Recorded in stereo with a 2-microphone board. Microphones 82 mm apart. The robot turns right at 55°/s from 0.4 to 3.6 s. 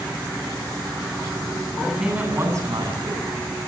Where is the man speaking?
175° left, 8.5 m; by 3.4 s 95° right, 8.5 m.